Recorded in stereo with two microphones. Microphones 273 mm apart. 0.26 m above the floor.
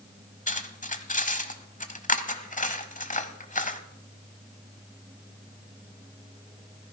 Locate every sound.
0.5 s cutlery clinking: 25° left (ahead or behind), 0.9 m